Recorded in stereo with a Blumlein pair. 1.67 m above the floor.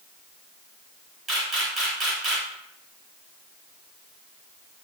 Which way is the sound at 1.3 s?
20° right.